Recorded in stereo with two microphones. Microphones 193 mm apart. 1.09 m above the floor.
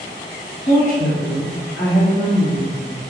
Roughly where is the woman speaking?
Left.